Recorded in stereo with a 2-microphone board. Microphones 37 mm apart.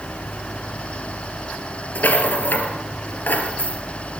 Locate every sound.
1.9 s a rattle: 60° left (ahead or behind), 3 m